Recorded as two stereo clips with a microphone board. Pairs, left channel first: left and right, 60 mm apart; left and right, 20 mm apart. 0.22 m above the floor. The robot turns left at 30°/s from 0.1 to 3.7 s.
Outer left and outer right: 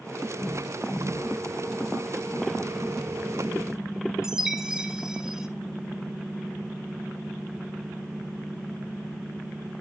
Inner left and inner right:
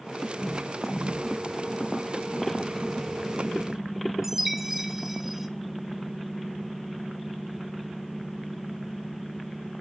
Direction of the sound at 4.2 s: 10° right (ahead or behind).